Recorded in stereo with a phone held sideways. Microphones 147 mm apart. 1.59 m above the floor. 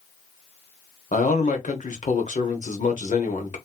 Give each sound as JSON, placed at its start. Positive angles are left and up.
{"t": 1.1, "sound": "a man speaking", "side_deg": 55, "distance_m": 1.1}